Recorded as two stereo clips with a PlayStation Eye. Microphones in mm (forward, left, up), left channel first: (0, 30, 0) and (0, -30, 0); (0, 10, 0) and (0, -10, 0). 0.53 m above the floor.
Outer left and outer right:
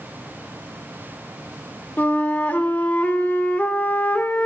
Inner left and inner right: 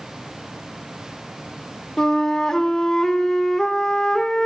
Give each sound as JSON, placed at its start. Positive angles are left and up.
{"t": 2.0, "sound": "a flute", "side_deg": 30, "distance_m": 0.8}